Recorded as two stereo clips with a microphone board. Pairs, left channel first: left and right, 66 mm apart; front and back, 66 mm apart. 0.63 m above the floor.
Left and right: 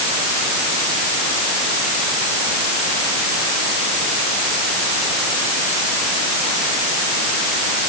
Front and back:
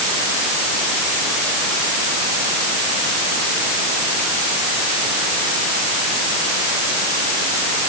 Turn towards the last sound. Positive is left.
No sound to turn to.